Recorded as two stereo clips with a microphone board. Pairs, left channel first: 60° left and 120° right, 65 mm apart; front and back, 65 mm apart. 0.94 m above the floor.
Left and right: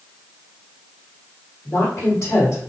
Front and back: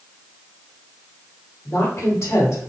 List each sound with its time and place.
1.6 s a woman speaking: 30° left, 1.9 m